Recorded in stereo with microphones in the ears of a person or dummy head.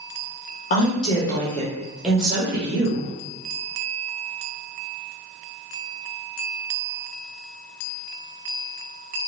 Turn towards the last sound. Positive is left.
turn(degrees=-25)  # may be behind; listen again after turning